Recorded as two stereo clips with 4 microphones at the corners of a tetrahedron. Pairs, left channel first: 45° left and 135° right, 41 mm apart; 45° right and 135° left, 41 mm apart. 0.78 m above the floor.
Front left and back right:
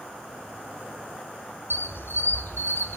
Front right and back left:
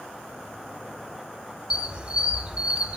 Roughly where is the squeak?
Left.